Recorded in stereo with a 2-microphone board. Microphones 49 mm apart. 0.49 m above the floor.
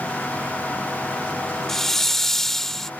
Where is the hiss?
5° left (ahead or behind).